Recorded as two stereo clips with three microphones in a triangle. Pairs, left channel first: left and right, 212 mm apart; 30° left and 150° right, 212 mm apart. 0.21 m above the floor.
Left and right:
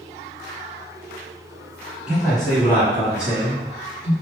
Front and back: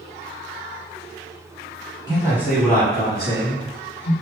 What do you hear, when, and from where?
2.1 s a man speaking: 170° right, 1.5 m; by 4.1 s 35° left, 2 m